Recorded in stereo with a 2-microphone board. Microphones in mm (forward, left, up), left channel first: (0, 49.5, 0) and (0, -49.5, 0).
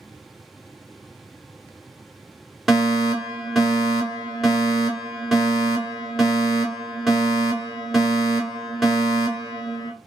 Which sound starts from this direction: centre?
A fire alarm, at 2.7 s.